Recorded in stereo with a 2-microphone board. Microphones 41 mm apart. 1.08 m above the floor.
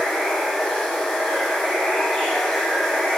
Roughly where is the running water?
Centre.